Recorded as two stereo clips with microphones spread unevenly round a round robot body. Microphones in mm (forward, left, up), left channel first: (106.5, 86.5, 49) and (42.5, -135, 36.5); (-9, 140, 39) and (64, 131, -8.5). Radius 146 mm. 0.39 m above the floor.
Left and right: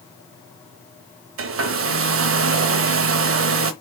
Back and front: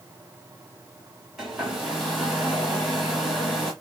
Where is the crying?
No crying in this recording.